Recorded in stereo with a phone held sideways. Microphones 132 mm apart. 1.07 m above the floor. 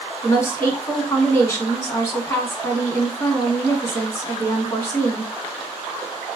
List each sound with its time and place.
0.2 s a woman speaking: 25° left (ahead or behind), 1.4 m